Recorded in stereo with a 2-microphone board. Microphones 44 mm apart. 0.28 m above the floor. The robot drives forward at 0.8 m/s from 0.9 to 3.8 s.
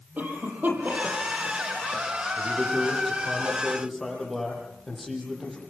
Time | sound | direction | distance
0.2 | a cough | 40° right (ahead or behind) | 10 m
2.4 | a man speaking | centre (ahead or behind) | 9.5 m